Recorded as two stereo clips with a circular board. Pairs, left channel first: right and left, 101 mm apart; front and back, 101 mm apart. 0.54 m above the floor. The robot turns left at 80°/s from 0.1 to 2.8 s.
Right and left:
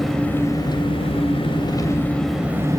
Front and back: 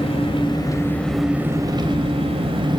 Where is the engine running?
5° right, 2.5 m; by 2.8 s 140° left, 2.5 m.